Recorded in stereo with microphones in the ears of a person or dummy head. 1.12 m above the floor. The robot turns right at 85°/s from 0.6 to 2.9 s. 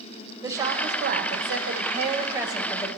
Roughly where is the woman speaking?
Behind.